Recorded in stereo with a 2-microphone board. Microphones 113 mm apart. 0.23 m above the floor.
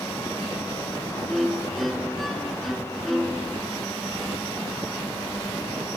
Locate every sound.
1.3 s a violin: centre (ahead or behind), 2.0 m